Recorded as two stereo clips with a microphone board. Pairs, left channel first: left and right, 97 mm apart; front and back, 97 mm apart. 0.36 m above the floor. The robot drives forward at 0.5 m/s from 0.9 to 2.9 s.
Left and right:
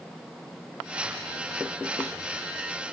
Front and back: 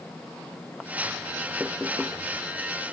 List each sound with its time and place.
Only background noise.